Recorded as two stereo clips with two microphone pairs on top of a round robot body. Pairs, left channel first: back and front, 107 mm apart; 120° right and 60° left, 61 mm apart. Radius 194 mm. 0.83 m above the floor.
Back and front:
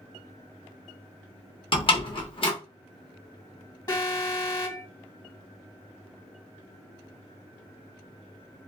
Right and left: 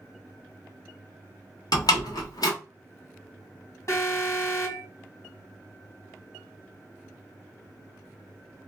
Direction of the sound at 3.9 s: 140° right.